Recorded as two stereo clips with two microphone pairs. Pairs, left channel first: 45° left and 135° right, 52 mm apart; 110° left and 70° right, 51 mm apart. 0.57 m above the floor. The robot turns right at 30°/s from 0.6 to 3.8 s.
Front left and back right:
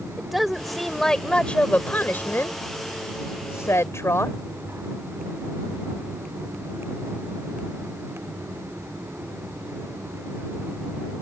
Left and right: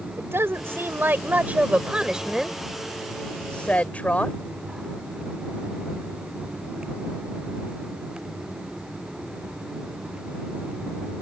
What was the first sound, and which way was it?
A woman speaking, 45° right.